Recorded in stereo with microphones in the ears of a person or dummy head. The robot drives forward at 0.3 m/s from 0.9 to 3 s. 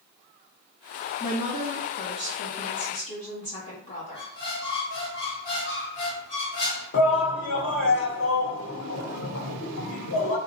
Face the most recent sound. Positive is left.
turn(degrees=85)